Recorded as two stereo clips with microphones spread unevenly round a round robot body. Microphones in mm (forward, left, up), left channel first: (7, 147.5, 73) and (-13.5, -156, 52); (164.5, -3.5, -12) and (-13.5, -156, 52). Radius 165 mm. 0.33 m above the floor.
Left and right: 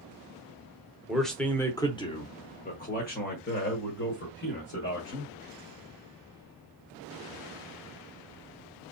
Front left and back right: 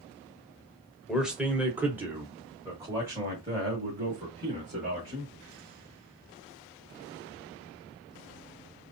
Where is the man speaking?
15° right, 1.1 m; by 5.3 s 140° left, 2 m.